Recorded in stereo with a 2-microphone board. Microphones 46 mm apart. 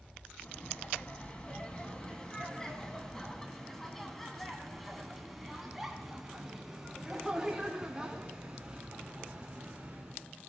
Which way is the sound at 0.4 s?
30° left (ahead or behind).